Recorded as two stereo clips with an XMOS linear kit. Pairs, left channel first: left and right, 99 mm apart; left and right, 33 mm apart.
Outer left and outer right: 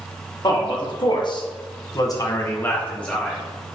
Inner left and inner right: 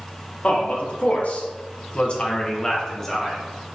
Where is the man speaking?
45° left (ahead or behind), 1.4 m; by 3.4 s 5° left (ahead or behind), 1.0 m.